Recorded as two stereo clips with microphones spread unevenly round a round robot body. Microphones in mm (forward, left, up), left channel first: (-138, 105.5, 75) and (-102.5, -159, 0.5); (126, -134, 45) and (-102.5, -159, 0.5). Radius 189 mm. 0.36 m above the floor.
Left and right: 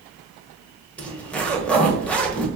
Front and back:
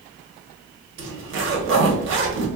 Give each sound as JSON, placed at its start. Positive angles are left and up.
{"t": 1.0, "sound": "a zipper", "azimuth_deg": -170, "distance_m": 0.7}